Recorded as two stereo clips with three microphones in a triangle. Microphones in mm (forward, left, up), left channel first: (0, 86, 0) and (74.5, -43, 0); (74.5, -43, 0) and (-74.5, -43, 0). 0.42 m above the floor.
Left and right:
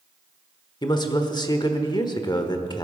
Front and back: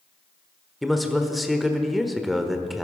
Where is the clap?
No clap in this recording.